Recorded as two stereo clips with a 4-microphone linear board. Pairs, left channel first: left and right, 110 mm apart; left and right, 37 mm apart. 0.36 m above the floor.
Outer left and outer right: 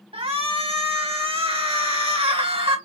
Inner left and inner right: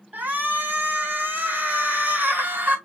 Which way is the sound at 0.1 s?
60° right (ahead or behind).